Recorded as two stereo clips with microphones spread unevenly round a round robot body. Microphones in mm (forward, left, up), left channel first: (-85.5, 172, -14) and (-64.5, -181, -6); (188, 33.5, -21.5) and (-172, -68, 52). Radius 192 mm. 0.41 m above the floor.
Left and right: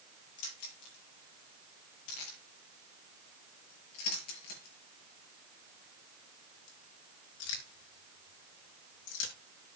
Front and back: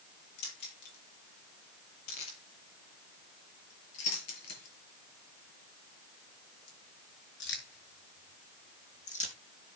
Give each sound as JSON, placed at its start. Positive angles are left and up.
{"t": 0.4, "sound": "keys jangling", "azimuth_deg": 60, "distance_m": 7.5}